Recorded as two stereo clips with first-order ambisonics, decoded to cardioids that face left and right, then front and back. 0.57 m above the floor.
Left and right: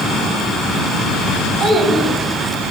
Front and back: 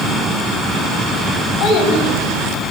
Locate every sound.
1.6 s a child speaking: 30° right, 2.5 m; by 2.7 s 15° right, 3.5 m